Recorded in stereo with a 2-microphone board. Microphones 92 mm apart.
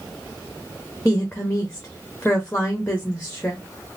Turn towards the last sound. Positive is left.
turn(degrees=15)  # may be behind; listen again after turning